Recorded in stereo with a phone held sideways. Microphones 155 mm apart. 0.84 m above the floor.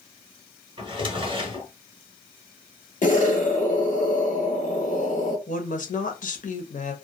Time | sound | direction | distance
0.8 | a drawer | 30° right (ahead or behind) | 0.7 m
3.0 | an explosion | 55° left (ahead or behind) | 1.0 m
5.5 | a woman speaking | 55° left (ahead or behind) | 0.8 m